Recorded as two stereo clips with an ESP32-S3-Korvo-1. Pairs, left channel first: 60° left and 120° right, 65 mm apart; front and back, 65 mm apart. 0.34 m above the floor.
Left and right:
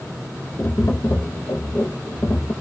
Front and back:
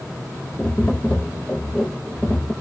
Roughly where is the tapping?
Ahead left.